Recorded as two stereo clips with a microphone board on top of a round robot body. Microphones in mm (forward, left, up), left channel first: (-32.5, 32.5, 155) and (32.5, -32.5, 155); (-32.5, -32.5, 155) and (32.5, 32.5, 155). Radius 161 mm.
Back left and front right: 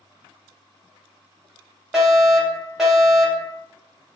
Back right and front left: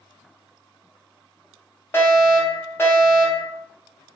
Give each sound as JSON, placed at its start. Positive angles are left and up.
{"t": 1.9, "sound": "a fire alarm", "azimuth_deg": -125, "distance_m": 1.9}